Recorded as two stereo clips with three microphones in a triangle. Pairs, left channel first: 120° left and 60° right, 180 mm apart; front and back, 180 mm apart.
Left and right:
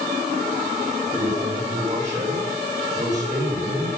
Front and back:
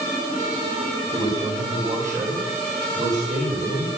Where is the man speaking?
130° right, 5.5 m.